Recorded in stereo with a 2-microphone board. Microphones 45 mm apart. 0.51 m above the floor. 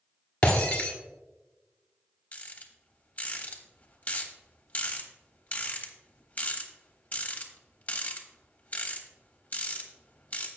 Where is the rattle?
30° left (ahead or behind), 1.2 m.